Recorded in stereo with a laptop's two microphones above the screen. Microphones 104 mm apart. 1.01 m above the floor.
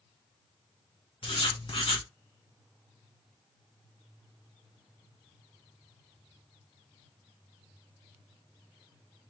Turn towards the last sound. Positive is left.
turn(degrees=60)  # may be behind; listen again after turning